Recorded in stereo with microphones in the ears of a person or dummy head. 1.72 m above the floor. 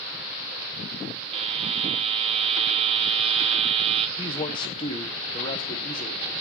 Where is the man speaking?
30° left (ahead or behind), 1.4 m.